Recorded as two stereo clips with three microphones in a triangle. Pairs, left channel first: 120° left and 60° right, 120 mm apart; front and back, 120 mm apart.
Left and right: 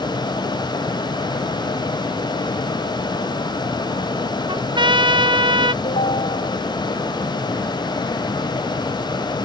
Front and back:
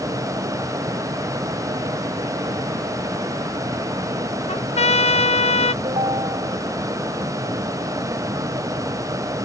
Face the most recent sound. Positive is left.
turn(degrees=140)